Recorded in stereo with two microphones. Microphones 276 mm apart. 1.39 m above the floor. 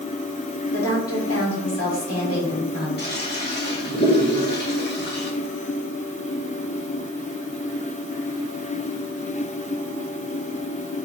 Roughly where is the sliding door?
I don't hear a sliding door.